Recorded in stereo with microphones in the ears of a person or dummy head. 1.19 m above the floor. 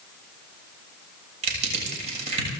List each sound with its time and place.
1.4 s crushing: 35° right (ahead or behind), 7 m